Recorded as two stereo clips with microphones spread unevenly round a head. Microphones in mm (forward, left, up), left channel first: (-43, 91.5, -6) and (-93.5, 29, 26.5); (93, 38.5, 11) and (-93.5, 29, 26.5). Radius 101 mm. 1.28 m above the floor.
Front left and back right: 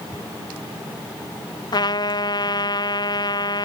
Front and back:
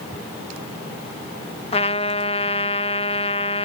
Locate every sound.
1.7 s a trumpet: 60° left